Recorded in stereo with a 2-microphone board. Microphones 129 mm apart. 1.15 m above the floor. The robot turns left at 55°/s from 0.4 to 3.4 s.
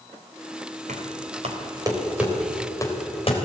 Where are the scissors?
No scissors in this recording.